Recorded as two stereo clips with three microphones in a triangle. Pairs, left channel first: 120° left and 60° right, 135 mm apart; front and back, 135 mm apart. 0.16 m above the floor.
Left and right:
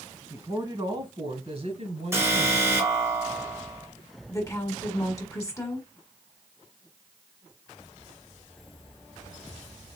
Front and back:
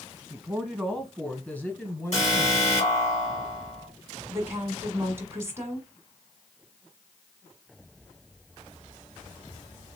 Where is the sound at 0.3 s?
110° right, 1.2 m; by 2.9 s 65° right, 2 m.